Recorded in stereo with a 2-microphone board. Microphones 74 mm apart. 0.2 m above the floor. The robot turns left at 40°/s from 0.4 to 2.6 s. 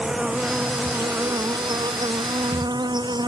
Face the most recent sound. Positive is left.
turn(degrees=-100)